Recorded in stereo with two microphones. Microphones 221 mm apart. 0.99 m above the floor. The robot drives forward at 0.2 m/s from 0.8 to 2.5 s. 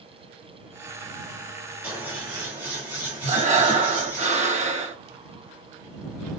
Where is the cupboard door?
No cupboard door in this recording.